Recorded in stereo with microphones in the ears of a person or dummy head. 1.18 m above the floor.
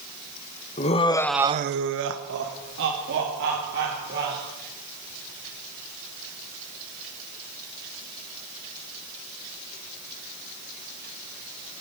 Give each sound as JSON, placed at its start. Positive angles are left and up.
{"t": 0.8, "sound": "laughter", "side_deg": 30, "distance_m": 1.3}